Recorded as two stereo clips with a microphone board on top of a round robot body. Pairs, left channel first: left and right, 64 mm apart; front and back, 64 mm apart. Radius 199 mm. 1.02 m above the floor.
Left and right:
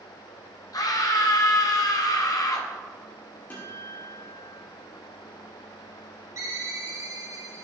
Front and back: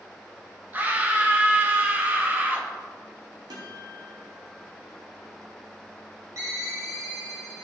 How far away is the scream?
About 1.6 m.